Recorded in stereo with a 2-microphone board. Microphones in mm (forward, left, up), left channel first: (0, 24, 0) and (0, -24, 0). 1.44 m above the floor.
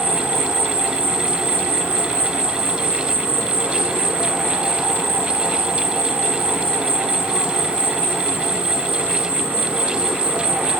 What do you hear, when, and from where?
0.0 s an insect: 40° right (ahead or behind), 1.1 m